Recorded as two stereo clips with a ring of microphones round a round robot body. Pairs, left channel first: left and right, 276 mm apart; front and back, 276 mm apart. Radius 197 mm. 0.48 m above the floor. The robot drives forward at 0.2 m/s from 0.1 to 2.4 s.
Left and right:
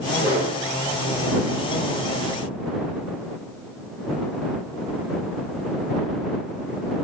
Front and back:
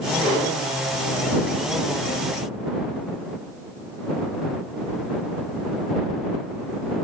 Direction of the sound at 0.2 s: 95° left.